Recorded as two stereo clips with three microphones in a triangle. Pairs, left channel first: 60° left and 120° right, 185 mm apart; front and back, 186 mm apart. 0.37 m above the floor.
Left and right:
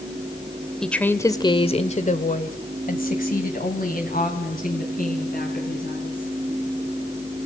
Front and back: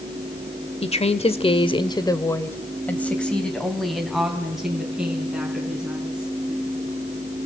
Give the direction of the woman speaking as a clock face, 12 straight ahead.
1 o'clock.